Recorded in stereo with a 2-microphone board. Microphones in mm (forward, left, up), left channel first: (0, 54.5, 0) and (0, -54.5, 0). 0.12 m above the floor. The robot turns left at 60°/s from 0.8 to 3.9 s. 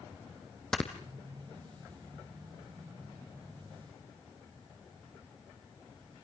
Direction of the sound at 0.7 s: 5° left (ahead or behind).